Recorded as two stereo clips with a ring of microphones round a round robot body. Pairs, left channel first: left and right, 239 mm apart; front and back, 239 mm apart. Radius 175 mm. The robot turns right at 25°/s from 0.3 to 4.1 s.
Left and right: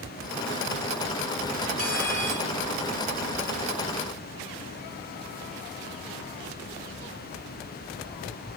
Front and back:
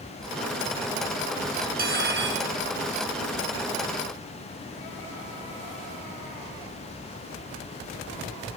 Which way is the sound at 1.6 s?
125° left.